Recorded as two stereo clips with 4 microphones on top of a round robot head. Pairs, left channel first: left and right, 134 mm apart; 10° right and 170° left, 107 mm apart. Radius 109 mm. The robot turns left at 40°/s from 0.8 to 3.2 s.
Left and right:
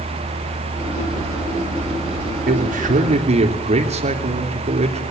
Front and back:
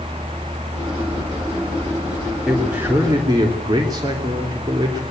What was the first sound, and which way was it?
A man speaking, 100° right.